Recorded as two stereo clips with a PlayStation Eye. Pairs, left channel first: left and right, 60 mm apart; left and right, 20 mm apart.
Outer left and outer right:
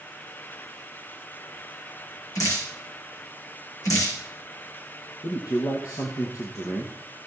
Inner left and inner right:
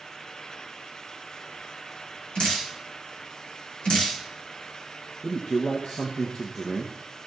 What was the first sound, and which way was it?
Dripping, 65° left (ahead or behind).